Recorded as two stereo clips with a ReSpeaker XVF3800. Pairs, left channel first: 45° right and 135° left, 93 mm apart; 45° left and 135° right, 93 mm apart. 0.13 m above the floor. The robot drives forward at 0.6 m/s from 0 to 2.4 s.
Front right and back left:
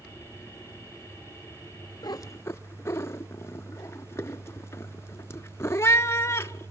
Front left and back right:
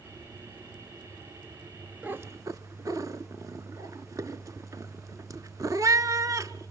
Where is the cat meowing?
65° right, 0.6 m; by 6.7 s 95° right, 0.5 m.